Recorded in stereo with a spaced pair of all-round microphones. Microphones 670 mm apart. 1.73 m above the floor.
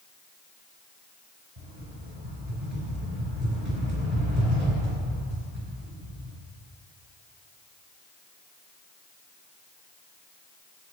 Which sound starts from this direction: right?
A rattle, at 1.6 s.